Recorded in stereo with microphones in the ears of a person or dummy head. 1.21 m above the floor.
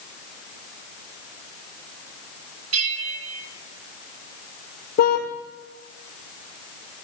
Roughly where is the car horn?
Left.